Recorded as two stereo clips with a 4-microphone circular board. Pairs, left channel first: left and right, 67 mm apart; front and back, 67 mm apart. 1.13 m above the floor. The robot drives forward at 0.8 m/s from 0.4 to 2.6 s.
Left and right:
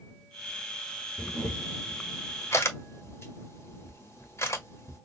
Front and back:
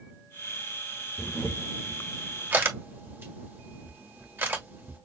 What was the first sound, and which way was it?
A camera shutter, 60° left.